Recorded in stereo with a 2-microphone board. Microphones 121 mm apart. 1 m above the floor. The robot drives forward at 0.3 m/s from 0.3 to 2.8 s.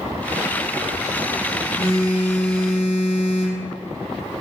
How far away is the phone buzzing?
About 1.1 m.